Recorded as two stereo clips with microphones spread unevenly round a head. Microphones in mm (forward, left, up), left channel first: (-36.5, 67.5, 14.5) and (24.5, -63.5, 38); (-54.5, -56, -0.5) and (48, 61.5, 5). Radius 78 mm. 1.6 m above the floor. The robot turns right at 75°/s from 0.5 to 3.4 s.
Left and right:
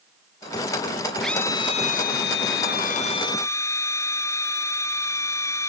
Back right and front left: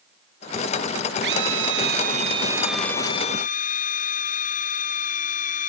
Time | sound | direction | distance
1.2 | a drill | 25° left | ?